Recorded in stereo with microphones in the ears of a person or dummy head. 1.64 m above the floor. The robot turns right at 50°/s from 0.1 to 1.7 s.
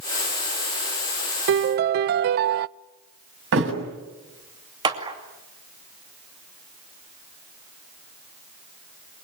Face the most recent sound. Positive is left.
turn(degrees=-25)  # may be behind; listen again after turning